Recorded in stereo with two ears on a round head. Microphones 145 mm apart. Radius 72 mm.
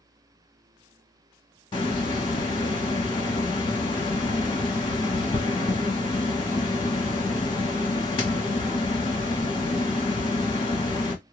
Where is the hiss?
30° left (ahead or behind), 1.5 m.